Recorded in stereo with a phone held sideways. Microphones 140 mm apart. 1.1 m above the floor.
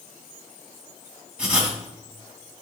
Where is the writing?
10° right (ahead or behind), 2.0 m.